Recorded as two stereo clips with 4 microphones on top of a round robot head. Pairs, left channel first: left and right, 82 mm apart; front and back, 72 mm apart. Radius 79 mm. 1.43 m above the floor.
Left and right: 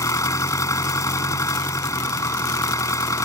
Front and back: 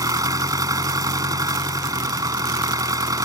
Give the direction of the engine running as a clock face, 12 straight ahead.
7 o'clock.